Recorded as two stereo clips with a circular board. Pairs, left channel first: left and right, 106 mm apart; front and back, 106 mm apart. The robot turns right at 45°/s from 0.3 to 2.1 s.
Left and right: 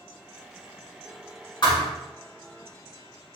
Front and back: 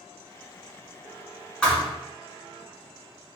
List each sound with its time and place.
1.6 s a thud: 80° left, 1.4 m; by 1.9 s 90° left, 1.4 m